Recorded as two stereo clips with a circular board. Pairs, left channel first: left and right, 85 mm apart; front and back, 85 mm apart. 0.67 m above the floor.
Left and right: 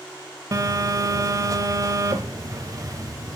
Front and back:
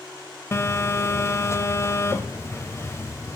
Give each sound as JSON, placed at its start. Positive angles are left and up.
{"t": 0.5, "sound": "a phone buzzing", "azimuth_deg": -50, "distance_m": 0.6}